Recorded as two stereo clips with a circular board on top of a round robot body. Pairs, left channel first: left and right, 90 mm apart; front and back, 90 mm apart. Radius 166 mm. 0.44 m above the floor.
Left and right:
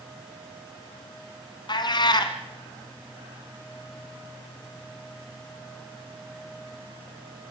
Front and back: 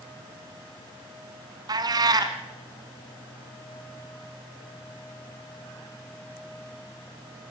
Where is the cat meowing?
135° left, 1.0 m.